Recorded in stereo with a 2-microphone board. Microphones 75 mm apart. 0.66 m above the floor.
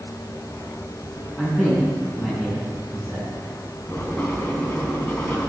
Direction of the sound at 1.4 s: 15° left (ahead or behind).